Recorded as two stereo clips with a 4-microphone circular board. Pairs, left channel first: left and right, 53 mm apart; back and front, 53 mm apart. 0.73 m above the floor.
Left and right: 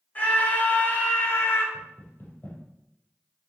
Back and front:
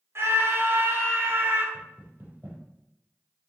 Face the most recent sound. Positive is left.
turn(degrees=45)